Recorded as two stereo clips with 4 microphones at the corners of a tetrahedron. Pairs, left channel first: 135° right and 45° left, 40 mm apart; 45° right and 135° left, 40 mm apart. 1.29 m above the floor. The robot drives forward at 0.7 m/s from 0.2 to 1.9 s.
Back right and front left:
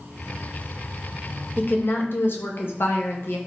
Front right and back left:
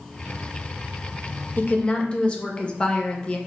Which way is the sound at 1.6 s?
90° right.